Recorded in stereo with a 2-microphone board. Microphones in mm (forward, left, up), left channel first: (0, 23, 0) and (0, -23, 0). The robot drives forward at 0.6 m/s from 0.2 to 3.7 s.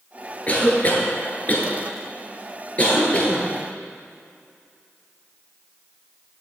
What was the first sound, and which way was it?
A cough, 30° left (ahead or behind).